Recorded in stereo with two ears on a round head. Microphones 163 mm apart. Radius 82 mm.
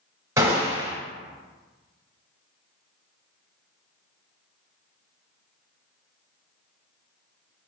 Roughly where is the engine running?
No engine running in this recording.